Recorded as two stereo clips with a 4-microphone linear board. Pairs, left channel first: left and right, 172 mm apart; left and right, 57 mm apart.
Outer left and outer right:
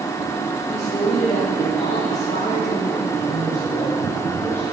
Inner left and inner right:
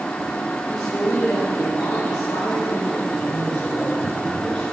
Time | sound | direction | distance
0.7 | a man speaking | 40° left (ahead or behind) | 6.5 m
3.1 | a man speaking | 15° left (ahead or behind) | 5.5 m